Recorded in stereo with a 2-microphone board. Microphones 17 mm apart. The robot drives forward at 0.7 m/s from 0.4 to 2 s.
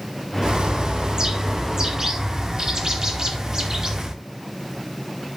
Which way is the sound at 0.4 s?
60° right (ahead or behind).